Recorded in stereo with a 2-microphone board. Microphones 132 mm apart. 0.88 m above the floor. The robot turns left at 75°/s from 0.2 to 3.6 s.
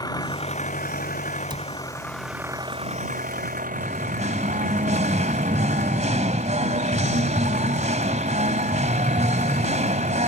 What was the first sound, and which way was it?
An engine running, 150° left.